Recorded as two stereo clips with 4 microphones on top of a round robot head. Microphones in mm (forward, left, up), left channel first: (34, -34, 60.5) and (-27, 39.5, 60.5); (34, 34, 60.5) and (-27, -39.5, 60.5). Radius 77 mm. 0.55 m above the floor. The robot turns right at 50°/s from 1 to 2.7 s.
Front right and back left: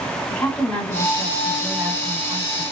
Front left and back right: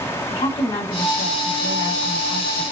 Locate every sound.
0.3 s a woman speaking: 25° left, 1.9 m; by 2.6 s 105° left, 1.9 m